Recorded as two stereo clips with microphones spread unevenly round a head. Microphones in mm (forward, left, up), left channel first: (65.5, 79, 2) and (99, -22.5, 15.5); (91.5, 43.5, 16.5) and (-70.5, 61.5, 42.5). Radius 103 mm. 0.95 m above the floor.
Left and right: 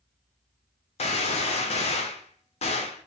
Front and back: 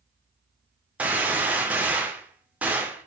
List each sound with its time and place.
1.0 s a gunshot: 100° left, 0.9 m